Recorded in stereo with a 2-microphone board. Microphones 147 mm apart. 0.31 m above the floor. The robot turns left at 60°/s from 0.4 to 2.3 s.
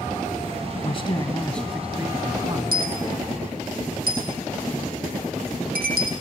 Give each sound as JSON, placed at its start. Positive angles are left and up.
{"t": 0.8, "sound": "a man speaking", "azimuth_deg": 50, "distance_m": 3.0}
{"t": 2.7, "sound": "a dropped coin", "side_deg": -90, "distance_m": 1.7}